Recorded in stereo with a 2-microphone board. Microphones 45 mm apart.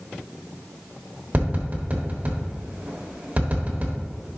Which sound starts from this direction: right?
Tapping, at 1.3 s.